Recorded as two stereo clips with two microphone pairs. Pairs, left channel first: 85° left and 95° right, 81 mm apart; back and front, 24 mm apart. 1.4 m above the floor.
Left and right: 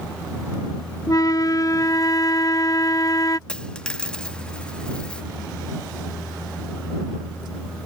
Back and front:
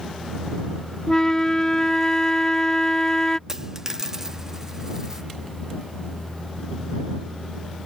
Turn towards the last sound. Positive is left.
turn(degrees=20)